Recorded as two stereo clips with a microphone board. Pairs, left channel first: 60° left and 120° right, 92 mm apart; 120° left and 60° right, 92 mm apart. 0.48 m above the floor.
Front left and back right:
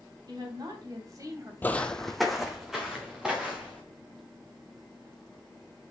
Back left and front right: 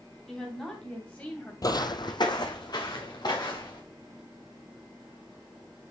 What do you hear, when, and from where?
0.3 s a woman speaking: 155° right, 4 m; by 1.5 s 175° right, 2.5 m
1.6 s footsteps: 115° left, 0.6 m; by 3.8 s 155° left, 3.5 m